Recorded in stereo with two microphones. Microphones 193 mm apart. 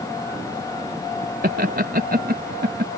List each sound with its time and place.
1.4 s laughter: 50° right (ahead or behind); by 2.9 s 55° right (ahead or behind)